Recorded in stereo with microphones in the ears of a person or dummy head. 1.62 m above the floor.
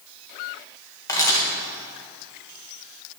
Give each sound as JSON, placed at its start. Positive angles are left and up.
{"t": 1.1, "sound": "a camera shutter", "side_deg": 10, "distance_m": 1.3}